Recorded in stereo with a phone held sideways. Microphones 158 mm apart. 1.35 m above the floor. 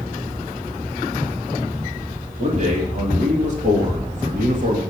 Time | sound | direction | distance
2.4 | a man speaking | 45° right (ahead or behind) | 3 m